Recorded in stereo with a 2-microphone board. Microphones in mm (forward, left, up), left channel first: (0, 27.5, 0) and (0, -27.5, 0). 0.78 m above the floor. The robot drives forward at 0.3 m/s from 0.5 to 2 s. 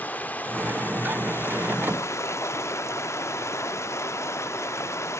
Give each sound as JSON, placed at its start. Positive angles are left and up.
{"t": 0.0, "sound": "running water", "side_deg": 30, "distance_m": 0.8}